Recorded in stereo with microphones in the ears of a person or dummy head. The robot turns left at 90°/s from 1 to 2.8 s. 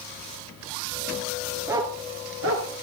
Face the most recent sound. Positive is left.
turn(degrees=-65)  # may be behind; listen again after turning